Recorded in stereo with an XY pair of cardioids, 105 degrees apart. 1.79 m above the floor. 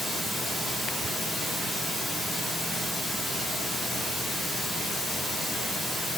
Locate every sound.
0.0 s running water: 35° right, 1.5 m